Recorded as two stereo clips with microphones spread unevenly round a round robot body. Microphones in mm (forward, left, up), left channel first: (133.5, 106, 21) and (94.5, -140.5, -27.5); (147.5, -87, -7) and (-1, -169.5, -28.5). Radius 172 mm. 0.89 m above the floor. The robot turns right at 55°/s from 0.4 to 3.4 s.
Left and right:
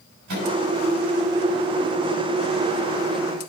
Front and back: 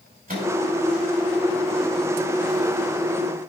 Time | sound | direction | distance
0.3 | a microwave | 120° right | 5 m